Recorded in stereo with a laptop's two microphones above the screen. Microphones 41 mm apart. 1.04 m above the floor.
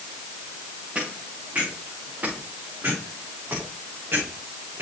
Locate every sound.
0.9 s footsteps: 35° right (ahead or behind), 5 m; by 4.8 s 65° right (ahead or behind), 5 m